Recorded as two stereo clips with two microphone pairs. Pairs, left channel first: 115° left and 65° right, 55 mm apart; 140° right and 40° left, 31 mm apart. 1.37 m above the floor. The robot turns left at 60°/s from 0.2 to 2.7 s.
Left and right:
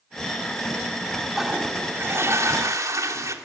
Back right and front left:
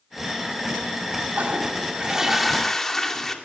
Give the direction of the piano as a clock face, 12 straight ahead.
I don't hear a piano.